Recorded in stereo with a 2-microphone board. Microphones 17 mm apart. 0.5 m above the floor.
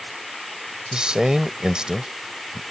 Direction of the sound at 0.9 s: 55° right (ahead or behind).